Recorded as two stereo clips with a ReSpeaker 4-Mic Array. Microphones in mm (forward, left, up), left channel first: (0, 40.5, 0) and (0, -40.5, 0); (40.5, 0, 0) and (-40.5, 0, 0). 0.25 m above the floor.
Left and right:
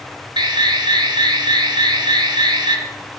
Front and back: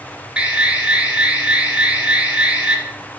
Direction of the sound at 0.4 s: 105° right.